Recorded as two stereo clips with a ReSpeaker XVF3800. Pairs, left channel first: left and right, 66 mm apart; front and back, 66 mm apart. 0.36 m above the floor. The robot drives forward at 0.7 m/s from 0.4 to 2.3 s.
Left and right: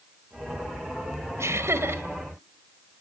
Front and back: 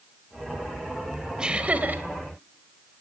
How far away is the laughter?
About 1.4 m.